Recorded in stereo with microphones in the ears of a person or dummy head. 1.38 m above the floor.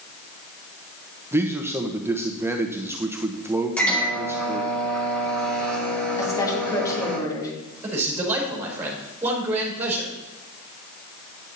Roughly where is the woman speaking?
Left.